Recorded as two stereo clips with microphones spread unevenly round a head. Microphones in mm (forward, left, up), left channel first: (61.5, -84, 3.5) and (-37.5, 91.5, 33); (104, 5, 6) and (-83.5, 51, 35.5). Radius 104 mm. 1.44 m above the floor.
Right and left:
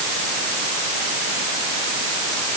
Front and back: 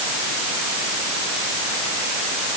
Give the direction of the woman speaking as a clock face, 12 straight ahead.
No woman speaking in this recording.